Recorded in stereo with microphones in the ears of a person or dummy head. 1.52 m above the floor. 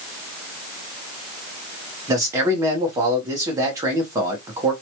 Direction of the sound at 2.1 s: 15° right (ahead or behind).